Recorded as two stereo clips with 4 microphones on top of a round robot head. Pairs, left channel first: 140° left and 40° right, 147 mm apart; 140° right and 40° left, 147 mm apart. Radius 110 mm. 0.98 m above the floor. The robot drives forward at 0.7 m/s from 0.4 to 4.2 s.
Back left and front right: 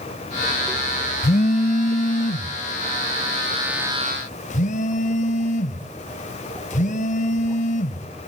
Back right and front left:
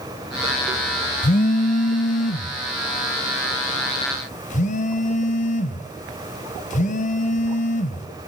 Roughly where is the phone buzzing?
Behind.